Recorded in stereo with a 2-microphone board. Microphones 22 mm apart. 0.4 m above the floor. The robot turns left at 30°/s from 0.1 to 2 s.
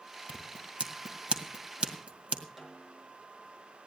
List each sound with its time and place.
0.3 s scissors: 45° right (ahead or behind), 1.8 m; by 2.4 s 65° right (ahead or behind), 1.8 m
2.6 s a snare drum: 10° right (ahead or behind), 4 m